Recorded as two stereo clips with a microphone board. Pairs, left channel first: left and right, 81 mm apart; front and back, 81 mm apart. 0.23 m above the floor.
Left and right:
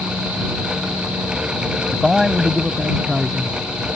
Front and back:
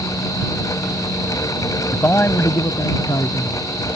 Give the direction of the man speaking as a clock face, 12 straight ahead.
12 o'clock.